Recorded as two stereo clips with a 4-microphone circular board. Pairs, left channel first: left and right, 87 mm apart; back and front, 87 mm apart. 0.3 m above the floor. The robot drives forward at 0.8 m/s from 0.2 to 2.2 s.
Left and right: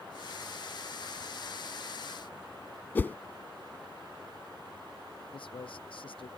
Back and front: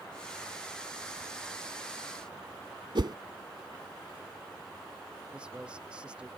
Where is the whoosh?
25° left.